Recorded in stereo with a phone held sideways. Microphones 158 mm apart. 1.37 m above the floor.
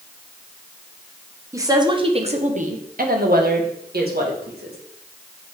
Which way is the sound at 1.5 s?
20° right (ahead or behind).